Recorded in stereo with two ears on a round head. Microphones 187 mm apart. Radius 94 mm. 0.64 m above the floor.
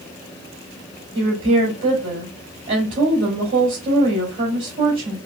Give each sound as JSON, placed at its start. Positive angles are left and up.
{"t": 1.1, "sound": "a woman speaking", "side_deg": -55, "distance_m": 3.0}